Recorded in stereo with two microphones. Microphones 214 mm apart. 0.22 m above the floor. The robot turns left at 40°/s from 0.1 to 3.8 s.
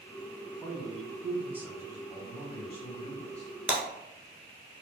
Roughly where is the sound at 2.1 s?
Centre.